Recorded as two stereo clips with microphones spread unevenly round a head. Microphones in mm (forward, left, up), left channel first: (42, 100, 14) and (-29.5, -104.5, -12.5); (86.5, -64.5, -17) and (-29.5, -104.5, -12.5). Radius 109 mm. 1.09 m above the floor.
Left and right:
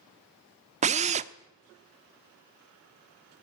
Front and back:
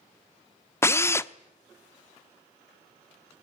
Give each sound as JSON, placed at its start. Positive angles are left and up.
{"t": 0.8, "sound": "a drill", "azimuth_deg": -50, "distance_m": 0.9}